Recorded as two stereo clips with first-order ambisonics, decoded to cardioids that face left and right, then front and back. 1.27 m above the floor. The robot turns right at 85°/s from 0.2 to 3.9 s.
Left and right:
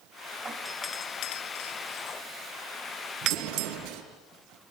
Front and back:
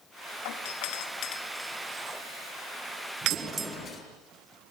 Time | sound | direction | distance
0.5 | a doorbell | 15° right | 2.5 m
3.2 | an explosion | 120° right | 8.5 m